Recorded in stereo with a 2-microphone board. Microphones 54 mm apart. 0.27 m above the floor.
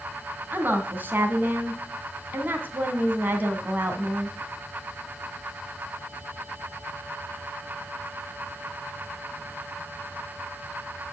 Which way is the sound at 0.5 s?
40° right (ahead or behind).